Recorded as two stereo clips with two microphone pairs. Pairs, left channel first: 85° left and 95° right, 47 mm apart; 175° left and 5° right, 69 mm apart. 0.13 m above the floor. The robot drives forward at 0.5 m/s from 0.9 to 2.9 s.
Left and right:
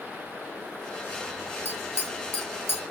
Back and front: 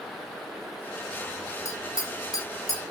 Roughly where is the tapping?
Behind left.